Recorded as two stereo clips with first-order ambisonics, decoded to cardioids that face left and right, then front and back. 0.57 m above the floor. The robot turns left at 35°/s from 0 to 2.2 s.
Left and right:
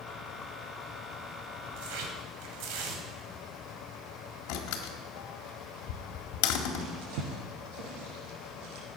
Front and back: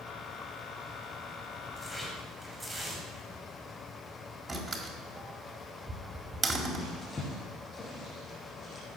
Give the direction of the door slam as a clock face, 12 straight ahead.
9 o'clock.